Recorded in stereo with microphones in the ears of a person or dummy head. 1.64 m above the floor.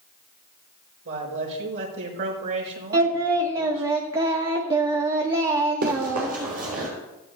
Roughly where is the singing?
Right.